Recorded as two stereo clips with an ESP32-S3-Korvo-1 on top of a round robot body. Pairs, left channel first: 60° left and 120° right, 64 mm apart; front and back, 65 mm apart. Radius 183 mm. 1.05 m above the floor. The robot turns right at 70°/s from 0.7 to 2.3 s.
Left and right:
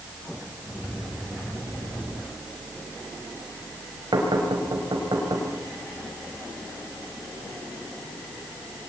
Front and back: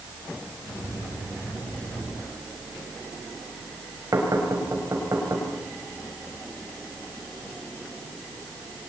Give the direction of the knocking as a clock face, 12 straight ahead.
5 o'clock.